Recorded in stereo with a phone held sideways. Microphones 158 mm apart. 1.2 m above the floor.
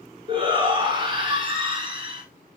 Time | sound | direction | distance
0.3 | a shout | 30° right (ahead or behind) | 4.5 m